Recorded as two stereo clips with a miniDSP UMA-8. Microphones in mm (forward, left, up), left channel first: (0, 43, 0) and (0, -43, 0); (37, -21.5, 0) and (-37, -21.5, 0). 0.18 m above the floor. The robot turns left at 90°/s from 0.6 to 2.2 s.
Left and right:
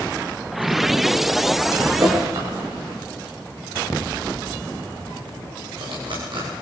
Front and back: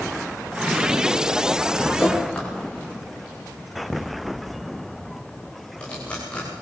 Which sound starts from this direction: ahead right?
Dripping, at 2.0 s.